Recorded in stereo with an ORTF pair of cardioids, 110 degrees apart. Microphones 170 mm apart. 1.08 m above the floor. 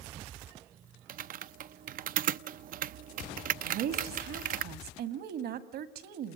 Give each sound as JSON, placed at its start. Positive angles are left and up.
{"t": 1.1, "sound": "typing on a keyboard", "azimuth_deg": -55, "distance_m": 0.6}
{"t": 3.6, "sound": "a woman speaking", "azimuth_deg": -70, "distance_m": 2.0}